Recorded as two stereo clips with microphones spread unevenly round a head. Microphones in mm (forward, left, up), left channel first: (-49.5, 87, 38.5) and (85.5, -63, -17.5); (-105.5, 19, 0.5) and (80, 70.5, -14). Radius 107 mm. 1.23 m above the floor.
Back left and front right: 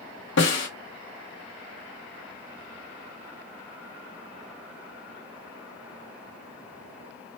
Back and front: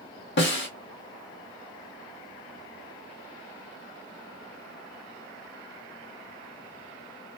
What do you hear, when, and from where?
0.4 s a snare drum: 170° left, 1.8 m